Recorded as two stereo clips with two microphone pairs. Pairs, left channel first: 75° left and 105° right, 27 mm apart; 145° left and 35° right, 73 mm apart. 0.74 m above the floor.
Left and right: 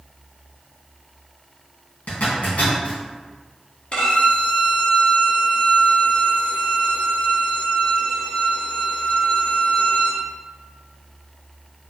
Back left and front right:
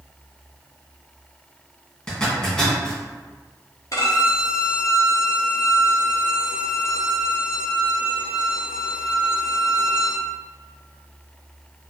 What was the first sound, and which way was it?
A zipper, 65° left.